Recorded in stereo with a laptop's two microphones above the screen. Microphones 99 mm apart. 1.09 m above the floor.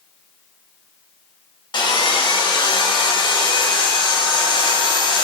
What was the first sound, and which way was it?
Sawing, 45° left (ahead or behind).